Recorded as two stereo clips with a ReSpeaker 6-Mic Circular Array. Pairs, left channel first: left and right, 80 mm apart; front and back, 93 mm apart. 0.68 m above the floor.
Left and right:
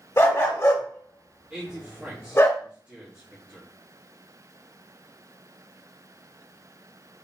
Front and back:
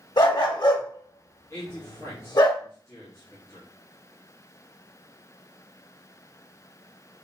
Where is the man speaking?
25° right, 1.2 m.